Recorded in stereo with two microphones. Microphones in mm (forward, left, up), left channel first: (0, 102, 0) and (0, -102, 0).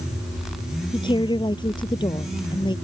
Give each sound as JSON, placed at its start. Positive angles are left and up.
{"t": 0.9, "sound": "a woman speaking", "side_deg": 25}